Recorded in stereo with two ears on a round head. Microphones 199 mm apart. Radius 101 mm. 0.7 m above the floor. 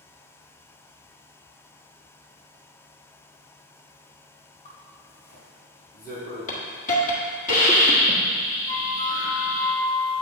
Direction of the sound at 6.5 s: 35° left (ahead or behind).